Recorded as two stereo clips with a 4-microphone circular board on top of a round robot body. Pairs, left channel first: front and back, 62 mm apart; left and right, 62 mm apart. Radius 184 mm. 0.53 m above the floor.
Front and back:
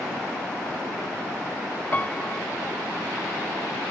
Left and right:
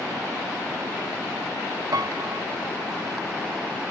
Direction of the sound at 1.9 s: 65° right.